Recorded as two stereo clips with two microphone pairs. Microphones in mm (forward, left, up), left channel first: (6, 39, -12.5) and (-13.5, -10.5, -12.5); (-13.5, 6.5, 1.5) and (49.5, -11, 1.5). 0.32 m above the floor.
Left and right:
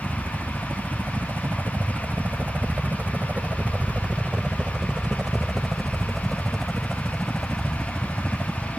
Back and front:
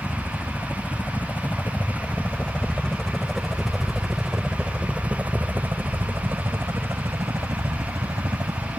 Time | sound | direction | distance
0.0 | a helicopter | 150° right | ?